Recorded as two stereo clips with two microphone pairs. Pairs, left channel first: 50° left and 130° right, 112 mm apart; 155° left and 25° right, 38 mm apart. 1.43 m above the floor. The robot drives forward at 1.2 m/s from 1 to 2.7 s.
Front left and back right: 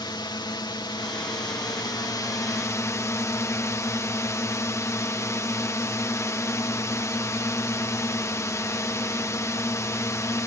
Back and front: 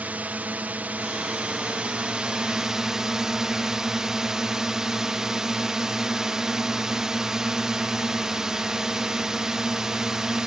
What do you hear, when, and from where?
0.0 s a drone: 10° left; by 10.5 s 30° left